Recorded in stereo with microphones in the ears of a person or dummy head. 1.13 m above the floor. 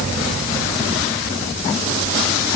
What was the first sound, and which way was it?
Only background noise.